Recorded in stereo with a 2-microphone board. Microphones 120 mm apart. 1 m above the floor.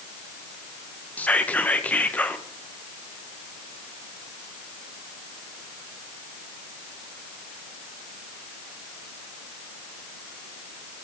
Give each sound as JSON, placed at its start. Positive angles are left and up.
{"t": 1.2, "sound": "whispering", "side_deg": 10, "distance_m": 0.6}